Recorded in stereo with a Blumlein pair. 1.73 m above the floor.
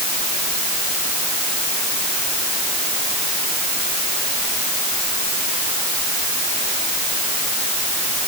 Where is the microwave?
I don't hear a microwave.